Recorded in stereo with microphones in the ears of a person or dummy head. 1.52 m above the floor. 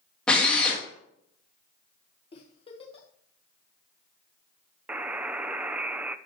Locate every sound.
0.3 s a drill: 10° left (ahead or behind), 2.5 m
2.3 s a giggle: 30° left (ahead or behind), 1.5 m
4.9 s a buzzer: 10° right (ahead or behind), 0.5 m